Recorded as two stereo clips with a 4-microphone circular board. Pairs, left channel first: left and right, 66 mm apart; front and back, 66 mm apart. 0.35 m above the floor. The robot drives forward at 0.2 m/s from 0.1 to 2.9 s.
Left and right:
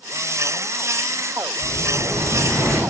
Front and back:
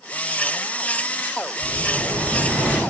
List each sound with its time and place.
1.6 s an explosion: 110° right, 1.8 m; by 2.8 s 120° right, 1.8 m